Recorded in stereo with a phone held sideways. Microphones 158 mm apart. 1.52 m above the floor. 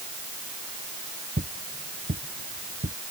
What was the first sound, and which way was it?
Footsteps, 65° right (ahead or behind).